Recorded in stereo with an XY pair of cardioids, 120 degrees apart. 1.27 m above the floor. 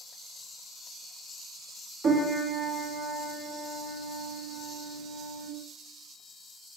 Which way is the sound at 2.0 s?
50° right.